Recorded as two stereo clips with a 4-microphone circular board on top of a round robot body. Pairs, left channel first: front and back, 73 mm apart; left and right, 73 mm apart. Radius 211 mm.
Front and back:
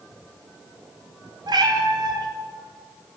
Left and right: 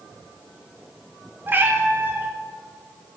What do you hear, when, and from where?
1.5 s a cat meowing: 155° right, 0.9 m